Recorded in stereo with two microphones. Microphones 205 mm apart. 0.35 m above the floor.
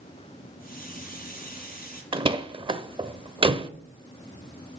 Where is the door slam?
25° right (ahead or behind), 0.6 m.